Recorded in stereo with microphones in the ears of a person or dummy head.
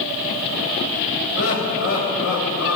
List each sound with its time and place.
1.4 s laughter: 75° left (ahead or behind), 8 m